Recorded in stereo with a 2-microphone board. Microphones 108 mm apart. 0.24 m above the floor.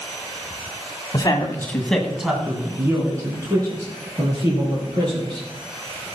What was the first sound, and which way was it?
A man speaking, 40° left (ahead or behind).